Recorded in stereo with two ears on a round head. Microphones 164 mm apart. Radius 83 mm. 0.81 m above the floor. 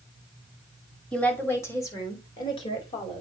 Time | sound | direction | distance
1.1 | a woman speaking | 5° left (ahead or behind) | 2.5 m